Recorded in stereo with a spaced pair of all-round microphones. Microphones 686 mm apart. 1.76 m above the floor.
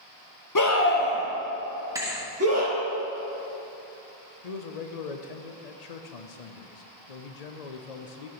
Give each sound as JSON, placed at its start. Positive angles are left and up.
{"t": 0.6, "sound": "a scream", "side_deg": 30, "distance_m": 1.0}
{"t": 1.9, "sound": "a thud", "side_deg": -5, "distance_m": 1.2}
{"t": 4.4, "sound": "a man speaking", "side_deg": 65, "distance_m": 0.8}